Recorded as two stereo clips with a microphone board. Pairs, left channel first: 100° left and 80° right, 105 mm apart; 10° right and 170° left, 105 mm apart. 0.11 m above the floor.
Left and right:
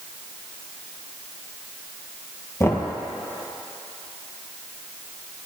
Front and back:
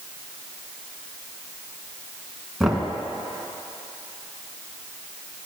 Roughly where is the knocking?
Left.